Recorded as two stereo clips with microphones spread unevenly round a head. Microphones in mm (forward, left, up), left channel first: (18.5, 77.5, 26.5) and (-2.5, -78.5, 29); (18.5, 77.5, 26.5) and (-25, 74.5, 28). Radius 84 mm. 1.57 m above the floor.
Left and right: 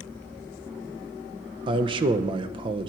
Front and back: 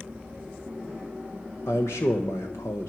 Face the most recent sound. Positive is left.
turn(degrees=-40)